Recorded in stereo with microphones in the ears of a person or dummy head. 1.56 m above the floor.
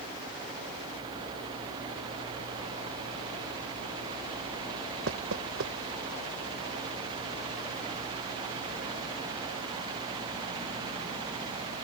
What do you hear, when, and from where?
5.1 s knocking: 70° right (ahead or behind)